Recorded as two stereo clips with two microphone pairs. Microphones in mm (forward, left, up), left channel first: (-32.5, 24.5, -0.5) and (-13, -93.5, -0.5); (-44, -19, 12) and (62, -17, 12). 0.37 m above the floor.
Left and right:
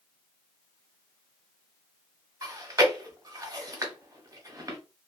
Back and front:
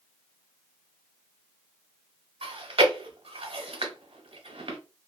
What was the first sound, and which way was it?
Chewing, 25° right.